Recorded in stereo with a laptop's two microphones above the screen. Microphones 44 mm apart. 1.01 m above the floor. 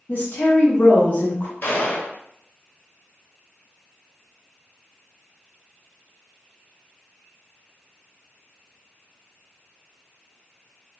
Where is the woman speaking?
45° left (ahead or behind), 0.7 m.